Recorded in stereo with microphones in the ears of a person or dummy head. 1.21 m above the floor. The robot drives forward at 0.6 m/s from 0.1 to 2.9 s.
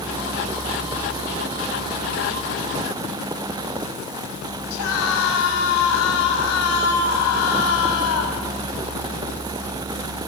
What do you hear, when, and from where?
4.7 s a scream: 85° left, 7 m